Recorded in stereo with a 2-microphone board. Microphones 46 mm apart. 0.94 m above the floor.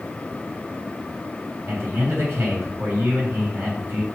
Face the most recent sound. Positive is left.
turn(degrees=-75)  # may be behind; listen again after turning